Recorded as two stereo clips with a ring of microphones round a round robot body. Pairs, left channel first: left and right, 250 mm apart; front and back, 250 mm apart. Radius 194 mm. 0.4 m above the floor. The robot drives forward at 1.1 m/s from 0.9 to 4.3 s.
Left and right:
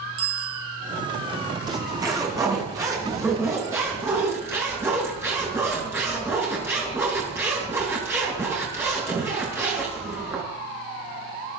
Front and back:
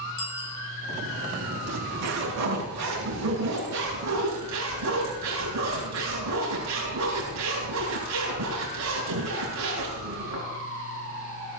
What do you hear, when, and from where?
0.2 s a bicycle bell: 45° right, 3 m
1.7 s a zipper: 165° right, 4.5 m; by 10.5 s 170° right, 7.5 m